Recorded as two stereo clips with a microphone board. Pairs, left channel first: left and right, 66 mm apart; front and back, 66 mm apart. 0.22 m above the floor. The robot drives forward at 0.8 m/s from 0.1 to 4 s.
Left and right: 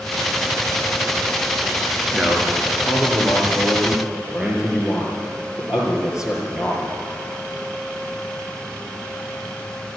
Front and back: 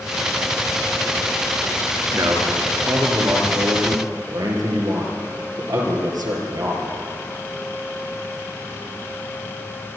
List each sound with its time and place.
2.1 s a man speaking: 165° right, 3.5 m; by 6.9 s 170° right, 5 m